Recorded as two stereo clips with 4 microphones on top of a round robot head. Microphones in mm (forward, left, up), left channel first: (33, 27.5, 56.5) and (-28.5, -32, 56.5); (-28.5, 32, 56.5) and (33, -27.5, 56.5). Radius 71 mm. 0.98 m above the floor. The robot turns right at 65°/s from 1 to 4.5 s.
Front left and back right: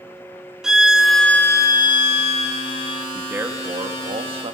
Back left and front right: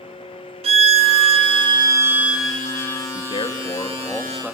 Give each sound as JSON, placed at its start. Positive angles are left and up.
{"t": 0.6, "sound": "a violin", "azimuth_deg": -50, "distance_m": 0.7}
{"t": 3.1, "sound": "a man speaking", "azimuth_deg": 145, "distance_m": 1.8}